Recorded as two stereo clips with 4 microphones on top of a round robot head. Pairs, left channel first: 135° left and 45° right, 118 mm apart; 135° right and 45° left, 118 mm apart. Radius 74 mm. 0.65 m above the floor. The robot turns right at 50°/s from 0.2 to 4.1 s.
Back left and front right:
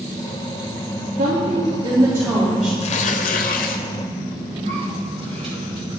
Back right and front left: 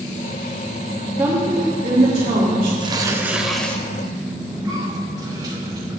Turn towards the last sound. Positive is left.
turn(degrees=-10)